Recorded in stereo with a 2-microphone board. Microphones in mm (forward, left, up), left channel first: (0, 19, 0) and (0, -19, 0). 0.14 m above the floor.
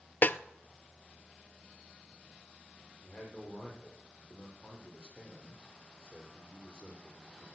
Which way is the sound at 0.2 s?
50° left (ahead or behind).